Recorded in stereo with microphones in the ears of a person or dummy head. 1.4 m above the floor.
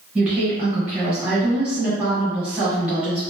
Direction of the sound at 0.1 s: 10° right (ahead or behind).